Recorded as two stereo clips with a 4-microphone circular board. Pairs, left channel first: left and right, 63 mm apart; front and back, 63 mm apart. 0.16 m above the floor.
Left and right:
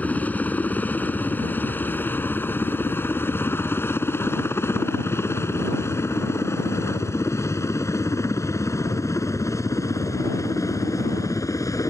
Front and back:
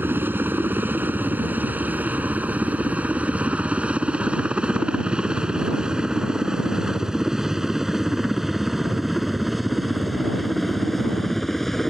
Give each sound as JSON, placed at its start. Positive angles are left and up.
{"t": 0.0, "sound": "a helicopter", "azimuth_deg": 145}